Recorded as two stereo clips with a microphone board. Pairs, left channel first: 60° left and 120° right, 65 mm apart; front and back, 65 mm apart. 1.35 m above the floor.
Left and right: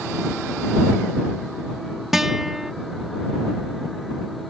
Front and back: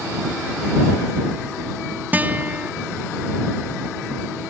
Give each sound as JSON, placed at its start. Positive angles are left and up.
{"t": 2.1, "sound": "a guitar", "azimuth_deg": 160}